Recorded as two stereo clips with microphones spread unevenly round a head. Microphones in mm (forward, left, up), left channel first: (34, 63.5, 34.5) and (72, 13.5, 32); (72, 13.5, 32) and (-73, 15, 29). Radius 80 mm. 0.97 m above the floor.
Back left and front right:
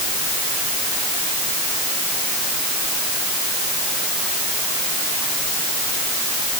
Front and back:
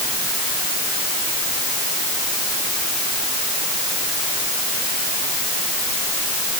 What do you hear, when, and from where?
Only background noise.